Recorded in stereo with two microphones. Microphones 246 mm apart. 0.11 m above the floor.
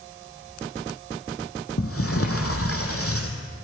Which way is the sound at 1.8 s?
65° left (ahead or behind).